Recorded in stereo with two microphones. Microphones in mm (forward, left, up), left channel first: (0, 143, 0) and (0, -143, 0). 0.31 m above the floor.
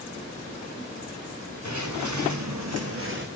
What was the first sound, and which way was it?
Footsteps, 70° right (ahead or behind).